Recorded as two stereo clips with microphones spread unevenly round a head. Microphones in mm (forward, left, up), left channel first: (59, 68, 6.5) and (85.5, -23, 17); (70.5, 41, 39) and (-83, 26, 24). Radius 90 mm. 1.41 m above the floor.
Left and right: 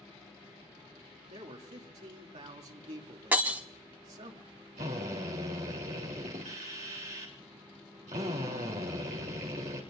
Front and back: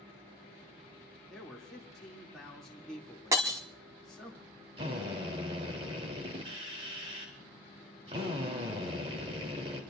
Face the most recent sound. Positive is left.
turn(degrees=-115)